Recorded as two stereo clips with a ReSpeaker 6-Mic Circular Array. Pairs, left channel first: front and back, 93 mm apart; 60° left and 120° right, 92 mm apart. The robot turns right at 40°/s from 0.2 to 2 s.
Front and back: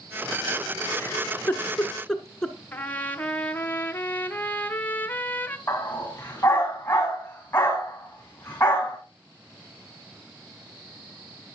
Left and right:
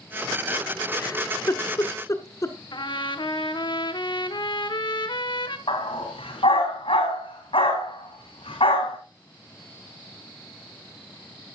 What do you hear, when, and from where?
1.0 s a giggle: 40° left, 1.2 m; by 2.5 s 80° left, 1.2 m
2.7 s a trumpet: 70° left, 0.8 m
5.7 s a dog barking: 70° left, 4.5 m